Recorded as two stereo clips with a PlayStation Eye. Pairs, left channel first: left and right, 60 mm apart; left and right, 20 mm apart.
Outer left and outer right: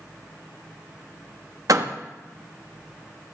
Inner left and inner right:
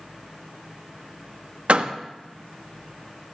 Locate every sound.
1.7 s a door slam: 70° right (ahead or behind), 0.9 m